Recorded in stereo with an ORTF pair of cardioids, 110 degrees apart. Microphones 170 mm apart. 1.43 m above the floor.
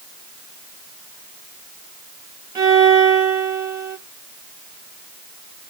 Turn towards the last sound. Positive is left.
turn(degrees=-20)